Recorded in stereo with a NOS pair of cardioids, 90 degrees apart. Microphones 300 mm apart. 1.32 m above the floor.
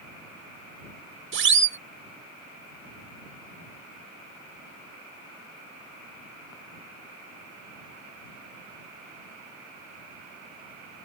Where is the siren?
40° right.